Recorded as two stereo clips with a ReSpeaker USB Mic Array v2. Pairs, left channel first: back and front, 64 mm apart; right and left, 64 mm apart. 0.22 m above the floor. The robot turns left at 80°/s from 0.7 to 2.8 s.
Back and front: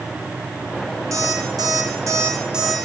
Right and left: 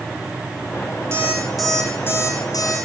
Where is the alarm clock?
40° left, 5 m; by 2.8 s 90° right, 5 m.